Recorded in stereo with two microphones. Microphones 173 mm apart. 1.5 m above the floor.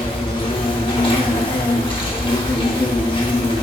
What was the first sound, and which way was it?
An insect, 30° left (ahead or behind).